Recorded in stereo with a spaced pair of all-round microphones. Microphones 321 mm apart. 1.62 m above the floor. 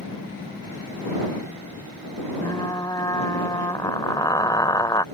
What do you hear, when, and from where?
2.4 s frying: 10° left (ahead or behind)